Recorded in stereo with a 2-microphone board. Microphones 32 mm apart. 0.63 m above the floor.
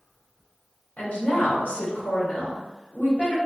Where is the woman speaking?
55° left (ahead or behind), 1.7 m.